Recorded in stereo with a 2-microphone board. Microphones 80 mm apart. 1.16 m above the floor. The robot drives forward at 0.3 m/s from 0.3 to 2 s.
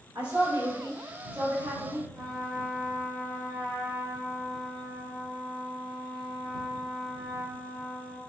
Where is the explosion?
No explosion in this recording.